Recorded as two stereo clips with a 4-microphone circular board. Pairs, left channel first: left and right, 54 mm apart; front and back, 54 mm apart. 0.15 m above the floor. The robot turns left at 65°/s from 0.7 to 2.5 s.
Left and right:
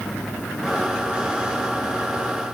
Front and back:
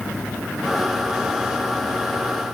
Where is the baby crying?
I don't hear a baby crying.